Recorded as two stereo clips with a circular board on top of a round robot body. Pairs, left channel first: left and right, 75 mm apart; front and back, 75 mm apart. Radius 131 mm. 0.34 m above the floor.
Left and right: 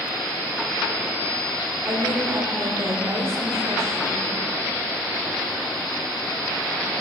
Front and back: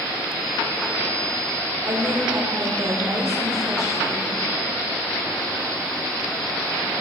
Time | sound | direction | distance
1.9 | a woman speaking | 135° right | 2.5 m